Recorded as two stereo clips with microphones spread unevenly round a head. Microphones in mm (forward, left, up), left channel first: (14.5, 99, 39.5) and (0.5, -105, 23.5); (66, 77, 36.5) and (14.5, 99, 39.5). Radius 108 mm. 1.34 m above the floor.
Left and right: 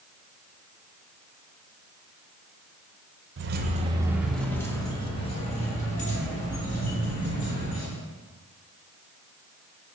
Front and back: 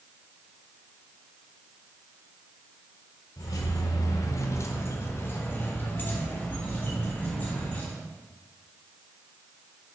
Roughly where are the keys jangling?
Ahead right.